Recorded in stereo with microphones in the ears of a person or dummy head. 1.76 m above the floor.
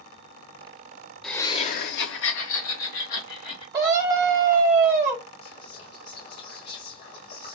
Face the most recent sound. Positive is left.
turn(degrees=50)  # may be behind; listen again after turning